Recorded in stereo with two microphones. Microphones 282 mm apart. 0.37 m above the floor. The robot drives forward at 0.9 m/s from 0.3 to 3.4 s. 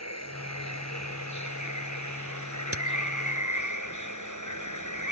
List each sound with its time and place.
0.0 s running water: 60° left (ahead or behind); by 5.1 s 80° left
2.7 s a crack: 50° right (ahead or behind)